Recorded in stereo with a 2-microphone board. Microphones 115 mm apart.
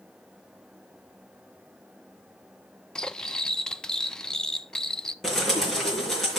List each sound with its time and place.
3.0 s cutlery clinking: 5° left (ahead or behind), 0.5 m
5.2 s a bird: 5° left (ahead or behind), 4.5 m